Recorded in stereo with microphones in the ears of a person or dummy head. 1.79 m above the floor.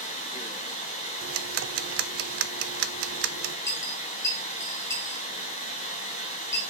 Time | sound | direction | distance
0.0 | running water | 40° left (ahead or behind) | 3 m
1.2 | ticking | 65° right (ahead or behind) | 0.7 m
3.7 | a dropped coin | 15° left (ahead or behind) | 1.7 m